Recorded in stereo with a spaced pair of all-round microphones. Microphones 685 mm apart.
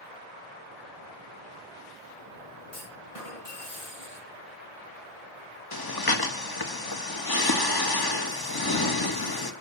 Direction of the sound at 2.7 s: 50° left (ahead or behind).